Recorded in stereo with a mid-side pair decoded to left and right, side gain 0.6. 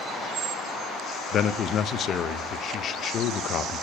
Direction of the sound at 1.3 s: 50° left.